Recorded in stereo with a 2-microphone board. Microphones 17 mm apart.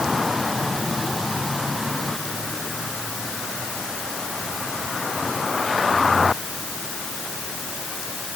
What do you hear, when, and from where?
Only background noise.